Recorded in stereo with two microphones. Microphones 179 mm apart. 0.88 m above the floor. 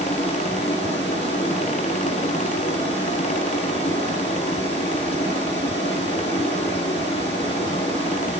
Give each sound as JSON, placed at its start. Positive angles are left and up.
{"t": 0.0, "sound": "running water", "side_deg": 30, "distance_m": 8.5}